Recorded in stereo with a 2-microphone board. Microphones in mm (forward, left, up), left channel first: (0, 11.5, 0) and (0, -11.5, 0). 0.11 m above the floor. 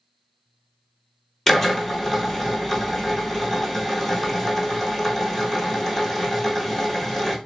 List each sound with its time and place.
1.5 s a drill: 10° left (ahead or behind), 0.9 m